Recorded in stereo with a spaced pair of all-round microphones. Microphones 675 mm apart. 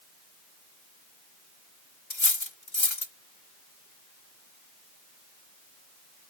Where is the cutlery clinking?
40° left (ahead or behind).